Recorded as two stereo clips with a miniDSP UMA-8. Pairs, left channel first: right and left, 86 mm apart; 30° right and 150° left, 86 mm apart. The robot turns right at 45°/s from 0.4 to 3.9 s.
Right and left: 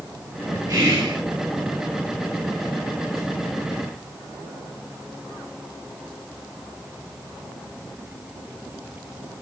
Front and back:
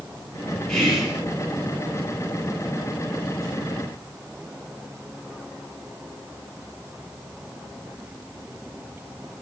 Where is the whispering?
50° left, 1.2 m; by 1.2 s 75° left, 1.2 m.